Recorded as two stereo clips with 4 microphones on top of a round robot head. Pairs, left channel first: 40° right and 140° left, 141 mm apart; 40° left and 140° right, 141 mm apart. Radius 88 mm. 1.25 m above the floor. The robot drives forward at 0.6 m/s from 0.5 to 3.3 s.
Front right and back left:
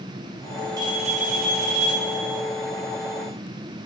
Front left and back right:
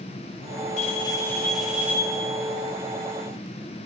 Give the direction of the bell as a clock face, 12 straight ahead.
9 o'clock.